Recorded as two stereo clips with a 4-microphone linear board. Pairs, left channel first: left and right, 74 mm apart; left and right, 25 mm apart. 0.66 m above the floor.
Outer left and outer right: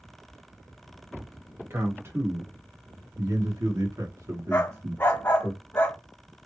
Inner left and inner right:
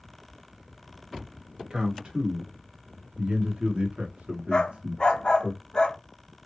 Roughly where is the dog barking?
Left.